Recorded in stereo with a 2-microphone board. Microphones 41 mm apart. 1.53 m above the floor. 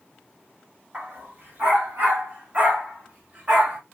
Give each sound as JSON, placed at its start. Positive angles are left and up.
{"t": 0.9, "sound": "a dog barking", "side_deg": -40, "distance_m": 3.5}